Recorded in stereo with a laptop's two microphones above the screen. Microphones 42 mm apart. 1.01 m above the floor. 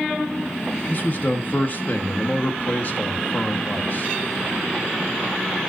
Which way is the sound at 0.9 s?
50° left (ahead or behind).